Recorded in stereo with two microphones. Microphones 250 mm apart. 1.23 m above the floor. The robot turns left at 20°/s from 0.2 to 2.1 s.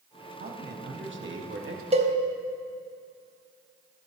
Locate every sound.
0.4 s a man speaking: 40° right (ahead or behind), 1.1 m; by 1.8 s 60° right (ahead or behind), 1.1 m
1.9 s a cowbell: 25° right (ahead or behind), 0.9 m